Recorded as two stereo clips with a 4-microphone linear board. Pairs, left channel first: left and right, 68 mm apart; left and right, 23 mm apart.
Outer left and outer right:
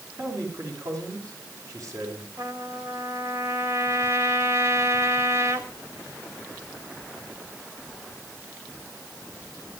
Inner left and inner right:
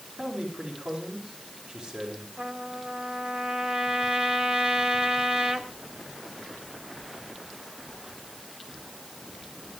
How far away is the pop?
No pop in this recording.